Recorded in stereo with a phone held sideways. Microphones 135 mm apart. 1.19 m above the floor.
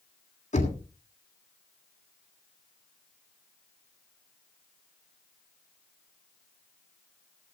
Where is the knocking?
55° left (ahead or behind), 2.5 m.